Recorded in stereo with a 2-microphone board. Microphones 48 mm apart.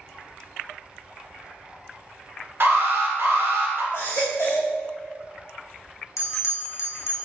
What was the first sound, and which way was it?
An alarm, 60° right (ahead or behind).